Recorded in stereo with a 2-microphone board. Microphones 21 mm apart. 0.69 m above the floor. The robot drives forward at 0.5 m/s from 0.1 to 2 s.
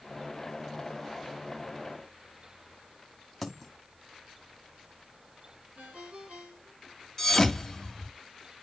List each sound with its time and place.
3.4 s a dropped coin: 10° left (ahead or behind), 1.9 m
5.8 s a ringtone: 70° right (ahead or behind), 6.5 m
7.2 s a thud: 20° left (ahead or behind), 1.3 m